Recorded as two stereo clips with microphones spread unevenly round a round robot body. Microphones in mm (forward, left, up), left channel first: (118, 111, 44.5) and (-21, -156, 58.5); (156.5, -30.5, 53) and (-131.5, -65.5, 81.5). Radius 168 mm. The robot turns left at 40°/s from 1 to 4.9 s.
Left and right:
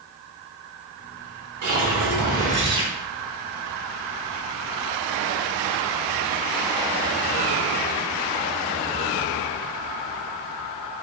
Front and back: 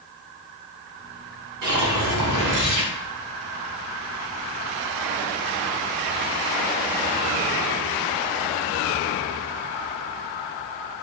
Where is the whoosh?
150° right, 0.9 m; by 2.9 s 160° left, 0.9 m.